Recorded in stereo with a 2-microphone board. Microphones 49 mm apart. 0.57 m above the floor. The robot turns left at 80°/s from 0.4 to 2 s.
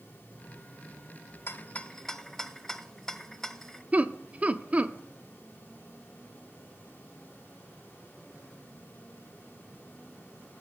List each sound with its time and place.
1.5 s a rattle: 50° left (ahead or behind), 0.6 m; by 3.8 s 10° left (ahead or behind), 0.6 m
3.9 s laughter: 25° right (ahead or behind), 0.7 m